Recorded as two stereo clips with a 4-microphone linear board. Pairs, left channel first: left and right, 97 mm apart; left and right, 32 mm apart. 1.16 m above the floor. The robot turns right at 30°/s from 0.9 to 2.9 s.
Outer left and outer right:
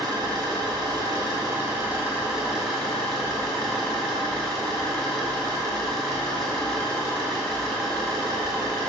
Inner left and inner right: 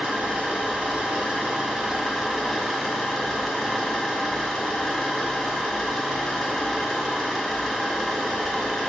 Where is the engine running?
50° right, 2.0 m; by 8.9 s 10° left, 2.0 m.